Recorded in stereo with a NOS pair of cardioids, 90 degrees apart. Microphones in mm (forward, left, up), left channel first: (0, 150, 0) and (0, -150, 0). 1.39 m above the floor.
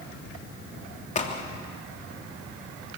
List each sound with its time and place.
1.1 s a crack: 25° left, 2.5 m